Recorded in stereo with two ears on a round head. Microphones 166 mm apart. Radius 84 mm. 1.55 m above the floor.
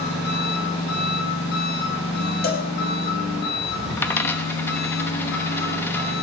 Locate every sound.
0.0 s an engine running: 70° left (ahead or behind), 10 m
2.4 s a cowbell: 55° left (ahead or behind), 1.9 m
4.0 s a dropped coin: 10° left (ahead or behind), 0.9 m